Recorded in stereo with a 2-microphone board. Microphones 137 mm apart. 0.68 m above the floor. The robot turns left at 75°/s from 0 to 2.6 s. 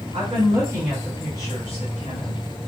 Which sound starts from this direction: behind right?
A woman speaking, at 0.1 s.